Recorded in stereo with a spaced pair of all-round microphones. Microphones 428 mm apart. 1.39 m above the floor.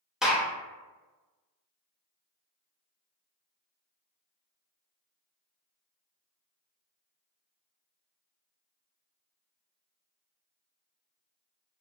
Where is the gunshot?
Centre (ahead or behind), 0.5 m.